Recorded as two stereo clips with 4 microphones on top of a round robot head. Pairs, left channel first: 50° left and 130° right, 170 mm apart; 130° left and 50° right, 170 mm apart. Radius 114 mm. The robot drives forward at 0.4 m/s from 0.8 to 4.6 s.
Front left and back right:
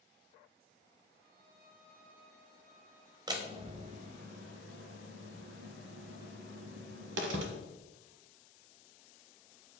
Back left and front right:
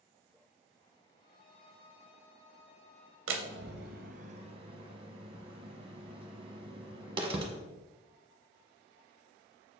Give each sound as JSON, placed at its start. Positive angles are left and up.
{"t": 1.2, "sound": "a violin", "azimuth_deg": -165, "distance_m": 0.6}
{"t": 3.3, "sound": "a door slam", "azimuth_deg": -65, "distance_m": 0.7}